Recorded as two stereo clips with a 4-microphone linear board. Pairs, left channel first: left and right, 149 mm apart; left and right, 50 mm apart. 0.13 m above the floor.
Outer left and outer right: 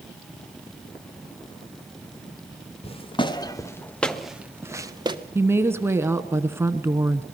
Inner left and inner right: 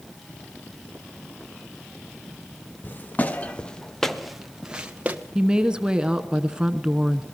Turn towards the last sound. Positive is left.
turn(degrees=-15)  # may be behind; listen again after turning